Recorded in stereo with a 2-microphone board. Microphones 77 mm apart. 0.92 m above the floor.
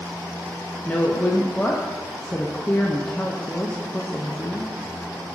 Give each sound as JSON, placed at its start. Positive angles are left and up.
{"t": 0.8, "sound": "a woman speaking", "side_deg": 20, "distance_m": 0.6}